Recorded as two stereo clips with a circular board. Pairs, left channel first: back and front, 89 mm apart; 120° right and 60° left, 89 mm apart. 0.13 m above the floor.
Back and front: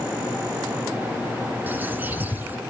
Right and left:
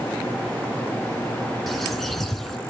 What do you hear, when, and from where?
1.7 s a bird: 35° right, 1.2 m